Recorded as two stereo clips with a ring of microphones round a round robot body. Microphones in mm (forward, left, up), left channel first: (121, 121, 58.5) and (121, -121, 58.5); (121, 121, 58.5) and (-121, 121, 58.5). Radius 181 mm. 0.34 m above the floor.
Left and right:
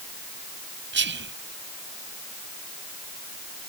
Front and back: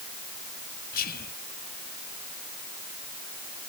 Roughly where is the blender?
No blender in this recording.